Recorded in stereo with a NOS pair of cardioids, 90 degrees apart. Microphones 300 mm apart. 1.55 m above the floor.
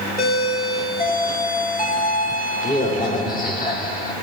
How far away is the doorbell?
About 2.5 m.